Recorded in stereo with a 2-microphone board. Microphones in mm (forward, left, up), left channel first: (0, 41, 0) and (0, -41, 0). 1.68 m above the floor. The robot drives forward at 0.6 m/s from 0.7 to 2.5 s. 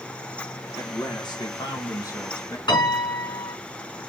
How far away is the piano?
About 5 m.